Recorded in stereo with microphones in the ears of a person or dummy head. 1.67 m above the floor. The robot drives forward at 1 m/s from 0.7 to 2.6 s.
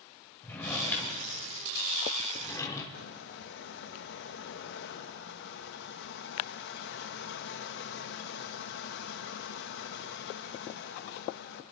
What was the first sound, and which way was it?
A drawer, 10° left (ahead or behind).